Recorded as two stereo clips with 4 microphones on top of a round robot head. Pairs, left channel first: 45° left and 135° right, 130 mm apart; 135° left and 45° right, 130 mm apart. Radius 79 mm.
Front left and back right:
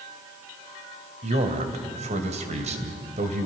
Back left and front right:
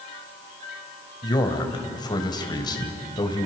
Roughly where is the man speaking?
Behind.